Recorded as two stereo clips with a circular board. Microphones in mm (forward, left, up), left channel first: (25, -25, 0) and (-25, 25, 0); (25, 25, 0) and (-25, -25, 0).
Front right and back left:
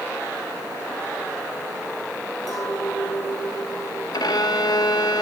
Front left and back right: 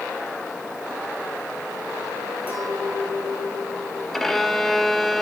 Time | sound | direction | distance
2.5 | a clink | 65° right | 3.5 m
4.1 | a violin | 40° right | 0.6 m